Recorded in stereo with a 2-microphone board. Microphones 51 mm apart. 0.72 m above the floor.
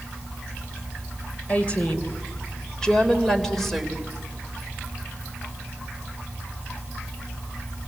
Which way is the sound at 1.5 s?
25° left (ahead or behind).